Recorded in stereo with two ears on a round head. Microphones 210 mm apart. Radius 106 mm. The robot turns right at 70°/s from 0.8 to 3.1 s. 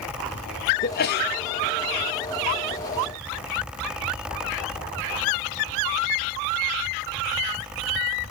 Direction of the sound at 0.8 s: 60° left.